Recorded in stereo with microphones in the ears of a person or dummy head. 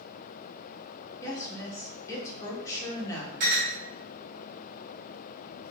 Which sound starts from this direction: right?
A clink, at 3.4 s.